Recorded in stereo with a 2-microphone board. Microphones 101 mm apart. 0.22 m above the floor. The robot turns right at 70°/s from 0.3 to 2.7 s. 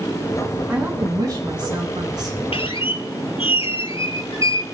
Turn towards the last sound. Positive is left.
turn(degrees=75)  # may be behind; listen again after turning